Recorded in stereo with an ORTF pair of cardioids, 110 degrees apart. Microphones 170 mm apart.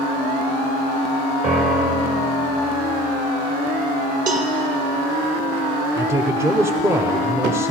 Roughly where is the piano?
Ahead right.